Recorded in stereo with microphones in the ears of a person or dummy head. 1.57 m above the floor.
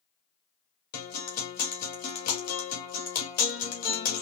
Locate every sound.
0.9 s a guitar: 50° left (ahead or behind), 1.8 m